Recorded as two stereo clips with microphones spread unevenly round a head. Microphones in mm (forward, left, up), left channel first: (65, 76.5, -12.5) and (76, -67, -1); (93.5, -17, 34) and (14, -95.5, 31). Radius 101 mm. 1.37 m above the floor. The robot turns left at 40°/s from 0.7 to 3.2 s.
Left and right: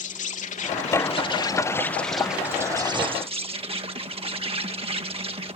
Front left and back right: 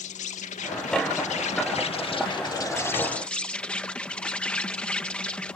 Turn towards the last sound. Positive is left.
turn(degrees=-35)